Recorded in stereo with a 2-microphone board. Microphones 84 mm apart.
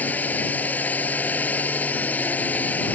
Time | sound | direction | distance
0.0 | a drone | 20° left (ahead or behind) | ?